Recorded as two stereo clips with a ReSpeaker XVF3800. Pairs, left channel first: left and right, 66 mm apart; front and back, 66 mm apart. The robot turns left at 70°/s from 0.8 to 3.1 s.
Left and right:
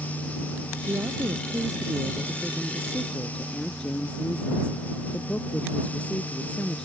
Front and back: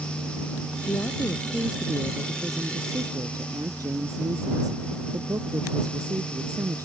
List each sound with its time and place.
0.9 s a woman speaking: 40° right; by 6.8 s 165° left